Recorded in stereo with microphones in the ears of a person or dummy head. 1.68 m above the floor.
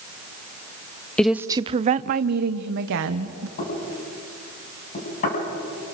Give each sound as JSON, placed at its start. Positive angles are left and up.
{"t": 1.2, "sound": "a woman speaking", "side_deg": 5, "distance_m": 0.5}
{"t": 3.6, "sound": "knocking", "side_deg": 50, "distance_m": 8.5}